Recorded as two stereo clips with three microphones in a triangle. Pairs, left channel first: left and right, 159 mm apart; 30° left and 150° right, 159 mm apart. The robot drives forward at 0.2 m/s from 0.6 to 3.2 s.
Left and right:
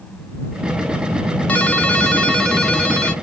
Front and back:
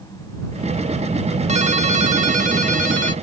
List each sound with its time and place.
1.5 s a ringtone: 170° left, 0.7 m; by 3.1 s 175° left, 1.0 m